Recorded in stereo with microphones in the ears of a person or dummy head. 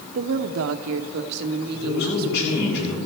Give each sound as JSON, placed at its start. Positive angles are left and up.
{"t": 0.1, "sound": "a woman speaking", "side_deg": -45, "distance_m": 0.6}
{"t": 1.7, "sound": "a man speaking", "side_deg": 65, "distance_m": 7.5}